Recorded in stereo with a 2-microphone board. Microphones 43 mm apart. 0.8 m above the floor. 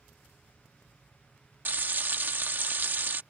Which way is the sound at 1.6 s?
45° right (ahead or behind).